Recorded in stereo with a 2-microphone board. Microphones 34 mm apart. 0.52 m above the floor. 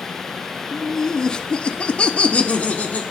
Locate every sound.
0.7 s laughter: 15° left (ahead or behind), 1.2 m; by 3.0 s 45° left (ahead or behind), 1.3 m